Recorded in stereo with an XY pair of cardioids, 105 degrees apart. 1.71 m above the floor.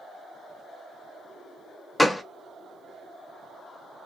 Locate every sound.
2.0 s a gunshot: 10° left, 0.5 m